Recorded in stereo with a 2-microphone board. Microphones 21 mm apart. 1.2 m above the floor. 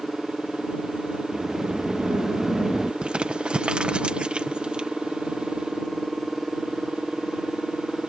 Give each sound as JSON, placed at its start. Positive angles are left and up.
{"t": 1.3, "sound": "a sliding door", "side_deg": -20}
{"t": 3.0, "sound": "crumpling", "side_deg": -60}